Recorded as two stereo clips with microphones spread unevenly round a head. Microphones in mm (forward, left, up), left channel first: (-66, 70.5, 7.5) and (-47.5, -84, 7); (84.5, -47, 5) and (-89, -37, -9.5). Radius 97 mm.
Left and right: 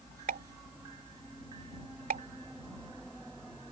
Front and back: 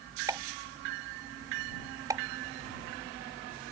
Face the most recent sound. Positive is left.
turn(degrees=-110)